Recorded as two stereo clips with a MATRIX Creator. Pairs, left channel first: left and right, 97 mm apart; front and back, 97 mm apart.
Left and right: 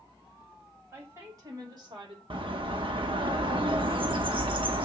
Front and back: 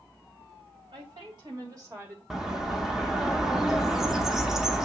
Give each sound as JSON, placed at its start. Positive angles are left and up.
{"t": 0.9, "sound": "a woman speaking", "azimuth_deg": -150, "distance_m": 2.5}
{"t": 2.3, "sound": "a bird", "azimuth_deg": -95, "distance_m": 0.7}